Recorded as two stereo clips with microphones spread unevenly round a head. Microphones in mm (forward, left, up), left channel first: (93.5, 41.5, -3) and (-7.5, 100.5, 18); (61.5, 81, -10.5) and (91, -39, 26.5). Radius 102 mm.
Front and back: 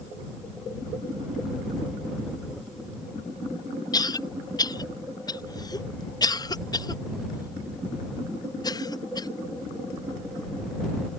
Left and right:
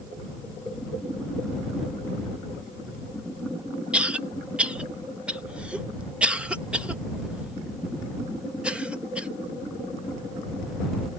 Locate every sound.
3.9 s a cough: 15° left